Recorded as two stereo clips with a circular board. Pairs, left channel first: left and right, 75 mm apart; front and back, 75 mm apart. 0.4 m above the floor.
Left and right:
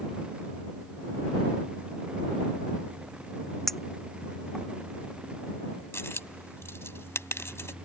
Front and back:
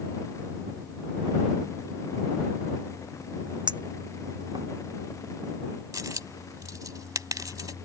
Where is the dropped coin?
145° left.